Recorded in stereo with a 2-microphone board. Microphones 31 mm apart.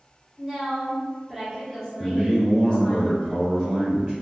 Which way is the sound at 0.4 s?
10° right (ahead or behind).